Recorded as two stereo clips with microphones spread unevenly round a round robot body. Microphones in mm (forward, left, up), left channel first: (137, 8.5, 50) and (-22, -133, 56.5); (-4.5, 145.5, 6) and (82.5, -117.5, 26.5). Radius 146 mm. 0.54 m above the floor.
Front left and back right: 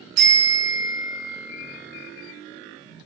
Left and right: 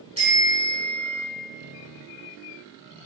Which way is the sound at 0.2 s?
145° right.